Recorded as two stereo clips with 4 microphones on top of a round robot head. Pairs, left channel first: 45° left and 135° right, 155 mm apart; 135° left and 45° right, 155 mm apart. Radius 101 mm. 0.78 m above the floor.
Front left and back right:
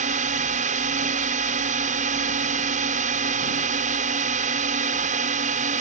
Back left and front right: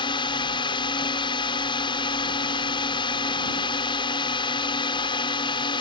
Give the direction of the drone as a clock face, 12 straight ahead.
6 o'clock.